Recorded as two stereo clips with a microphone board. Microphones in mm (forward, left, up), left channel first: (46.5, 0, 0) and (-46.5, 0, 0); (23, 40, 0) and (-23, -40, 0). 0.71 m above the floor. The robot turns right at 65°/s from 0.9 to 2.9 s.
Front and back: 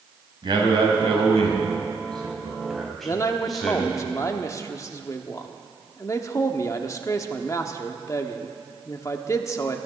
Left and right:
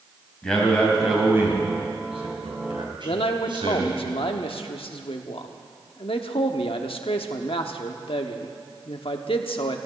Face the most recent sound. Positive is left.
turn(degrees=55)